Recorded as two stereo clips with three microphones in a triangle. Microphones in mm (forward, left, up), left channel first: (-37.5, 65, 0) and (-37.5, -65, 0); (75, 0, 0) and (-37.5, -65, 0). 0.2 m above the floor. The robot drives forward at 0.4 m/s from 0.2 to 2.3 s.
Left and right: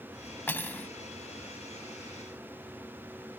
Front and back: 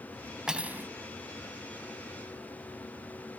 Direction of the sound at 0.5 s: 135° left.